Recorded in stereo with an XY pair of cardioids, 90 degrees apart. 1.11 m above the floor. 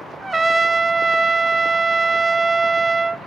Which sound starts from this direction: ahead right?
A trumpet, at 0.2 s.